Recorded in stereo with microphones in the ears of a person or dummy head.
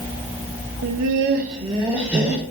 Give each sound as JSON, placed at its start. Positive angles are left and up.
{"t": 0.8, "sound": "laughter", "side_deg": -80, "distance_m": 0.5}